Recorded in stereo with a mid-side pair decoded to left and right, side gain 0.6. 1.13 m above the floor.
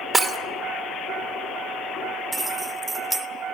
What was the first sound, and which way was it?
Breaking glass, 15° right.